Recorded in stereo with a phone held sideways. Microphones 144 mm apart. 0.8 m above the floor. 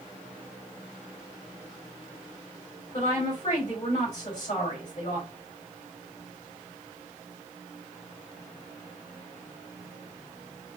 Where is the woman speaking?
55° left (ahead or behind), 3 m.